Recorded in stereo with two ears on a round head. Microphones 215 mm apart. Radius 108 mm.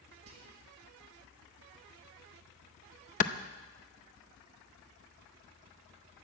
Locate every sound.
0.3 s whispering: 65° right (ahead or behind), 1.4 m
3.2 s a clap: 35° left (ahead or behind), 0.6 m